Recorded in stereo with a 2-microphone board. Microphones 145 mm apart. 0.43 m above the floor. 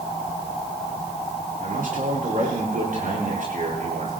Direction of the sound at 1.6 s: 75° right (ahead or behind).